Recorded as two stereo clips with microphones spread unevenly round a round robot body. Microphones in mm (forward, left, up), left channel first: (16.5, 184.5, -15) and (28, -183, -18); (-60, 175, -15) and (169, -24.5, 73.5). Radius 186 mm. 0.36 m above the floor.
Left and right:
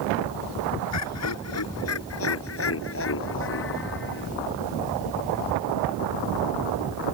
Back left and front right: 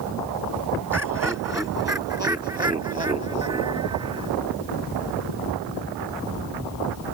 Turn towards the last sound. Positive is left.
turn(degrees=30)